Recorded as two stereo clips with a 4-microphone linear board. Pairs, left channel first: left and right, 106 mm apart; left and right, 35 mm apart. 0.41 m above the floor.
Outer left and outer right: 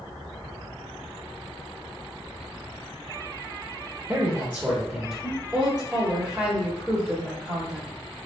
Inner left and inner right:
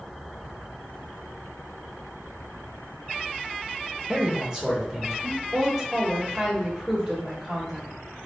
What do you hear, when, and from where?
4.1 s a man speaking: 30° right (ahead or behind), 0.9 m; by 5.4 s centre (ahead or behind), 1.0 m
5.5 s a woman speaking: 10° right (ahead or behind), 1.0 m